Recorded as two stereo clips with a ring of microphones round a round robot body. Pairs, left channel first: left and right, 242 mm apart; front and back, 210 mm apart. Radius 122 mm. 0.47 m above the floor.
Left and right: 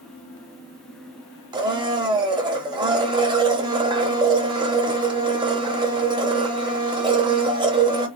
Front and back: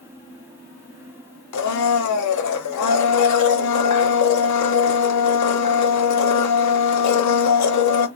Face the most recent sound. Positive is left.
turn(degrees=-15)